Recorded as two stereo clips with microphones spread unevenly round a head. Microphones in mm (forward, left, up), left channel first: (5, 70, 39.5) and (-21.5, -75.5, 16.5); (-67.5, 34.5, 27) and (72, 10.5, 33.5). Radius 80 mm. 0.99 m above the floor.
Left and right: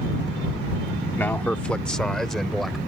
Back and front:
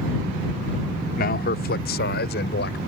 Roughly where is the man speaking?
Behind.